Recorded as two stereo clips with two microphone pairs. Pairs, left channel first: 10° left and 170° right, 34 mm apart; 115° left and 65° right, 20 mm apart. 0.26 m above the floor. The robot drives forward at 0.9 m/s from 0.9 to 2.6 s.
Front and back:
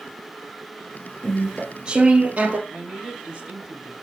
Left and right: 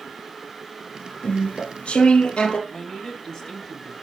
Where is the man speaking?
145° left, 2 m.